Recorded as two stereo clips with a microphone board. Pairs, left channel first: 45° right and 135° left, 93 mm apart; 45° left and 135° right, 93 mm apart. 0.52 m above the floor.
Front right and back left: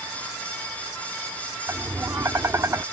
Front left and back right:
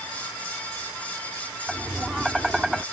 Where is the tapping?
145° left.